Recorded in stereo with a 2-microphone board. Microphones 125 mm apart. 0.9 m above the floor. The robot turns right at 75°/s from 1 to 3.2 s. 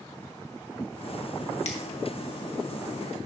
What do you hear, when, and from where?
1.6 s a finger snap: 60° left (ahead or behind), 1.3 m; by 1.8 s 65° left (ahead or behind), 1.3 m